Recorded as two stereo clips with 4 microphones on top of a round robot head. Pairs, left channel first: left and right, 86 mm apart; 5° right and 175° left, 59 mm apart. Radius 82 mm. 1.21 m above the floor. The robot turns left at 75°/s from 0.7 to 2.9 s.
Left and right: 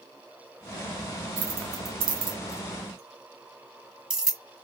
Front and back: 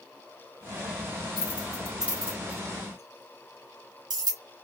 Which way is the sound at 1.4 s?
55° right.